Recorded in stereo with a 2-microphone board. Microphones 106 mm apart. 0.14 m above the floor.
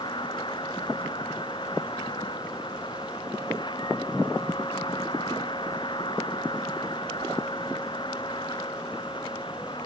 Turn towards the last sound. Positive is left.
turn(degrees=50)  # may be behind; listen again after turning